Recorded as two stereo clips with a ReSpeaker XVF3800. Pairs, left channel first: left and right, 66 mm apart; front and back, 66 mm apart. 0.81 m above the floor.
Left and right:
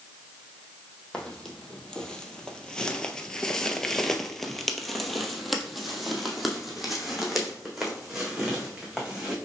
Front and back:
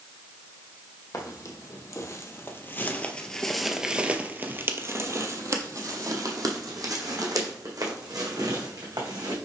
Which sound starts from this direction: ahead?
Footsteps, at 1.1 s.